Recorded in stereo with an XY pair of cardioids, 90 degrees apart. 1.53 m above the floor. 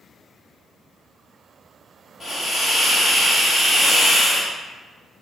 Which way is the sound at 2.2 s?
45° left.